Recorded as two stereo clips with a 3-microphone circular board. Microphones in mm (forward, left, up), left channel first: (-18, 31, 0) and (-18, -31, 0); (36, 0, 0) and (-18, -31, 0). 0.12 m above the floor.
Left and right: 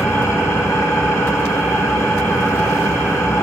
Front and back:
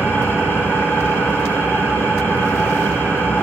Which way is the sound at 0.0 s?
80° left.